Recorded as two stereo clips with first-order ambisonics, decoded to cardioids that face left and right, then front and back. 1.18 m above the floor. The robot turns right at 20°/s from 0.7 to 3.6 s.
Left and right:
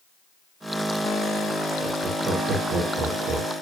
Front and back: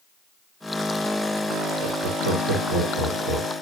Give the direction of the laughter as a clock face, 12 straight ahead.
6 o'clock.